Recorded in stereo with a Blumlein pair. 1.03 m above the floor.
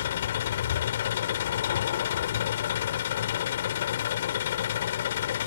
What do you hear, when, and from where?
0.0 s an engine running: 60° left